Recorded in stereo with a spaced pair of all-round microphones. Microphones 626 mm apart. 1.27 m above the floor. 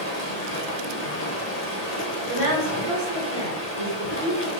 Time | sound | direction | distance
0.0 | running water | 85° left | 0.9 m
2.3 | a woman speaking | 60° right (ahead or behind) | 1.6 m